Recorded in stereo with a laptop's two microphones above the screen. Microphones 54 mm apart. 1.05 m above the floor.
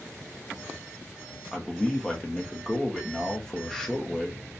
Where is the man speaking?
10° left (ahead or behind), 0.8 m.